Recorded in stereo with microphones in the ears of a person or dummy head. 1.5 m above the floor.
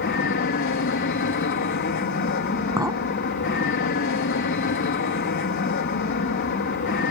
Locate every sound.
0.0 s an aircraft: 60° left (ahead or behind)
2.8 s a clink: 15° right (ahead or behind)